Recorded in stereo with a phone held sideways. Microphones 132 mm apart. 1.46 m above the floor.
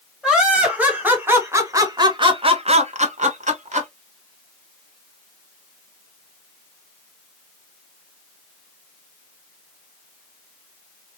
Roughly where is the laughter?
Centre.